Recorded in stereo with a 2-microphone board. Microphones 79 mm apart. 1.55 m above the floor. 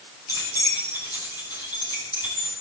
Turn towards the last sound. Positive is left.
turn(degrees=60)  # may be behind; listen again after turning